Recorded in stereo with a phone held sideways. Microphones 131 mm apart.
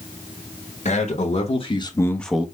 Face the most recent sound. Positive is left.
turn(degrees=-10)  # may be behind; listen again after turning